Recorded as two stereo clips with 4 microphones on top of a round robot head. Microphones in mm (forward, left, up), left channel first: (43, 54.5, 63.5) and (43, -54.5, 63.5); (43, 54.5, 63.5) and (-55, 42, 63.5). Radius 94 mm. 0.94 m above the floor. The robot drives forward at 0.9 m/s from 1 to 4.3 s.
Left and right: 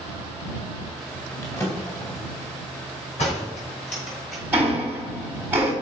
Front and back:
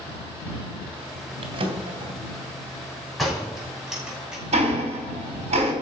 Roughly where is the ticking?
Behind.